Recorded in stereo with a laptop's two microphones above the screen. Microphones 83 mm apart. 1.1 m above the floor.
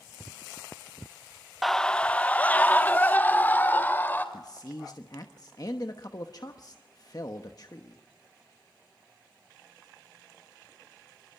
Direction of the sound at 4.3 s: 50° left (ahead or behind).